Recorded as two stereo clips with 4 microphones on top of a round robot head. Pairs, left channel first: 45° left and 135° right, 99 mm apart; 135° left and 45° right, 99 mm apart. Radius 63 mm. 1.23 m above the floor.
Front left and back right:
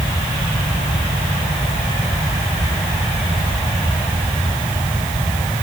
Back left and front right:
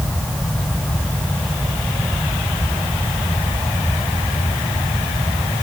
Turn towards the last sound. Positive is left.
No sound to turn to.